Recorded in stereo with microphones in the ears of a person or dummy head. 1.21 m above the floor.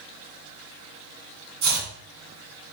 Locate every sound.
1.6 s chopping: 75° right (ahead or behind), 1.8 m